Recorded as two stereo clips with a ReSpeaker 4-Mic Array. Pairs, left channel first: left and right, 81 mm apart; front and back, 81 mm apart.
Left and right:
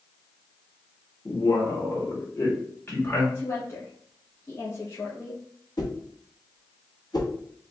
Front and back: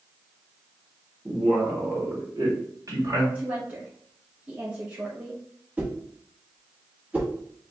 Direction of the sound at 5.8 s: 110° left.